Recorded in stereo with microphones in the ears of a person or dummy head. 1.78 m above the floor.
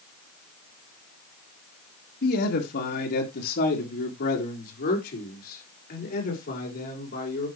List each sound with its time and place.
2.2 s a man speaking: 60° left (ahead or behind), 2.5 m; by 7.5 s 55° left (ahead or behind), 6 m